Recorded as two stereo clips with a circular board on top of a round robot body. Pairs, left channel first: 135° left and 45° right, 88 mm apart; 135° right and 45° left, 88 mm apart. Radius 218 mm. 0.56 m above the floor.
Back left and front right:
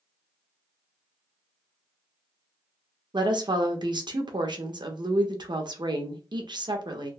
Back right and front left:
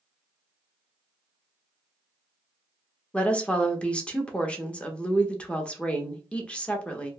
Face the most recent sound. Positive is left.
turn(degrees=-60)